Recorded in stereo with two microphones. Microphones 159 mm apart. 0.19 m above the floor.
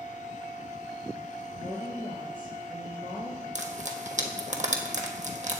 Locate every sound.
1.6 s a woman speaking: 60° right (ahead or behind), 3 m
3.5 s frying: 50° right (ahead or behind), 1.2 m